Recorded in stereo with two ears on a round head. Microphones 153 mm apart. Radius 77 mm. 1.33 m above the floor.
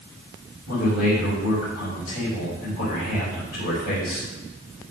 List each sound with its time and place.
0.7 s a man speaking: 60° left (ahead or behind), 6 m